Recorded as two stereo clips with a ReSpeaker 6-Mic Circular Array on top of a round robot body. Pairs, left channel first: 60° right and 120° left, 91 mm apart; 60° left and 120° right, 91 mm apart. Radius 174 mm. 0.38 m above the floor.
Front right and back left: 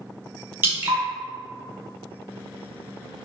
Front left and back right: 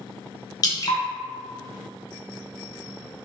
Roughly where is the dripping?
Ahead left.